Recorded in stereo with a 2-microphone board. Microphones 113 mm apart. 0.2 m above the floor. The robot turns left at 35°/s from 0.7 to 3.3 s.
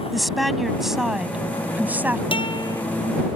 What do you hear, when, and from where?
0.1 s a woman speaking: centre (ahead or behind); by 2.2 s 20° right (ahead or behind)
2.3 s a guitar: 50° left (ahead or behind); by 2.8 s 30° left (ahead or behind)